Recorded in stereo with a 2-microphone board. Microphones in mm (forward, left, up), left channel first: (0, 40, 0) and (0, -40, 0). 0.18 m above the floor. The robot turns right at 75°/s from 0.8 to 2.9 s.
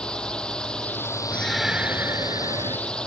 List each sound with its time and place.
0.0 s a drone: 10° left; by 3.1 s 170° left
1.3 s a shout: 160° left; by 2.8 s 90° right